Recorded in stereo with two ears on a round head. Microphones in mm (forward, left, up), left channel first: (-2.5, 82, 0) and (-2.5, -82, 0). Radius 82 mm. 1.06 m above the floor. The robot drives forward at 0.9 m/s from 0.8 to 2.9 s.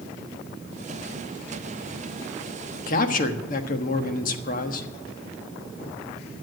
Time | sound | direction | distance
2.9 | a man speaking | 50° left (ahead or behind) | 1.4 m